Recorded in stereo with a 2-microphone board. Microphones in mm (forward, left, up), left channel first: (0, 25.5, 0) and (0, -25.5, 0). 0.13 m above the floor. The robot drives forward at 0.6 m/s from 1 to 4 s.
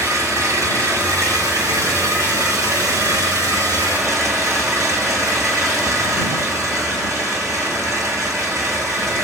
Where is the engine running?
80° right, 8.5 m; by 9.2 s 70° right (ahead or behind), 9 m.